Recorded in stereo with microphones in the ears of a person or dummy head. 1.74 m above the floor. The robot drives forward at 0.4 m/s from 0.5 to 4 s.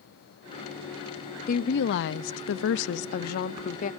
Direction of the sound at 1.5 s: 50° left (ahead or behind).